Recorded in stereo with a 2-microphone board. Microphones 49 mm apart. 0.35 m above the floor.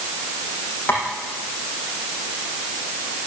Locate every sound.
0.9 s tapping: 35° left (ahead or behind), 8 m